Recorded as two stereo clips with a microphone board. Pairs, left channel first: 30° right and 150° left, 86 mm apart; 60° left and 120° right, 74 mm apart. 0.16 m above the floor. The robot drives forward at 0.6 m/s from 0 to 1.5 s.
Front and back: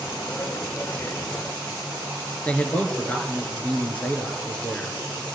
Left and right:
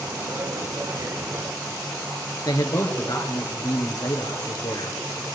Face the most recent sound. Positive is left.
turn(degrees=40)